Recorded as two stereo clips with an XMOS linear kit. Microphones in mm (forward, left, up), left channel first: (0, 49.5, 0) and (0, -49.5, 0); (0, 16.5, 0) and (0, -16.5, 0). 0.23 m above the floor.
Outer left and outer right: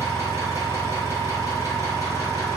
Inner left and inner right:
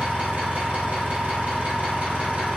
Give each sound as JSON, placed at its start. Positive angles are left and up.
{"t": 0.0, "sound": "an engine running", "side_deg": -35, "distance_m": 1.4}